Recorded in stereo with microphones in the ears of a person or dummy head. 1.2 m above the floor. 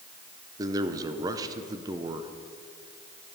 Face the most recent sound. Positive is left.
turn(degrees=-25)  # may be behind; listen again after turning